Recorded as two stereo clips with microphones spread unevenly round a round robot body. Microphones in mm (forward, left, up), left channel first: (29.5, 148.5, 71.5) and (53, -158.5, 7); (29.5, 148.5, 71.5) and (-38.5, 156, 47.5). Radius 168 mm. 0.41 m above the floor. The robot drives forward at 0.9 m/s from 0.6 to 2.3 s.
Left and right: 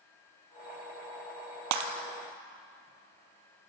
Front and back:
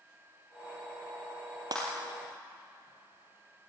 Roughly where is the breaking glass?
Behind right.